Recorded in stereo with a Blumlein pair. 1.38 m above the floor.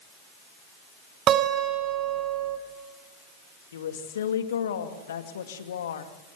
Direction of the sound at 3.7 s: 65° left.